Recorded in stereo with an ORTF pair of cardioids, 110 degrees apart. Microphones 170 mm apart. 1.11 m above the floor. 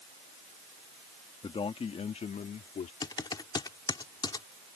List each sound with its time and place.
1.4 s a man speaking: 30° left; by 2.9 s 45° left
3.0 s typing on a keyboard: 25° left